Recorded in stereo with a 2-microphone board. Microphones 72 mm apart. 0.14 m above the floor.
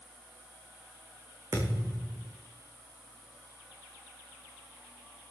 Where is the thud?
55° right (ahead or behind), 4.5 m.